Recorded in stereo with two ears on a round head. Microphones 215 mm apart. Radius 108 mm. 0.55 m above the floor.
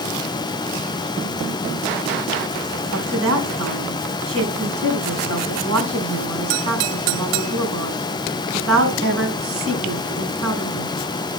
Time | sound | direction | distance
2.9 | a woman speaking | 60° right (ahead or behind) | 4.5 m